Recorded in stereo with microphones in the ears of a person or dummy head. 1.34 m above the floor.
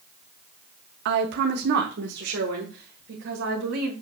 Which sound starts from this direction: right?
A woman speaking, at 1.1 s.